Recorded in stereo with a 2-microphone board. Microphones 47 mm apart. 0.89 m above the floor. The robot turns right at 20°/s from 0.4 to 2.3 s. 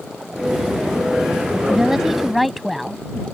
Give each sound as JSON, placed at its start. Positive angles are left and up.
{"t": 1.7, "sound": "a woman speaking", "side_deg": -15}